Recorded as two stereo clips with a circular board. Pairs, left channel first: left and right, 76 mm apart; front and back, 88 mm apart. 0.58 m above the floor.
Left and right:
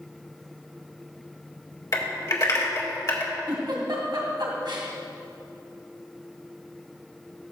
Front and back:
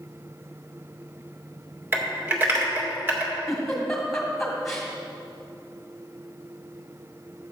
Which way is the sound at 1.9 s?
125° left.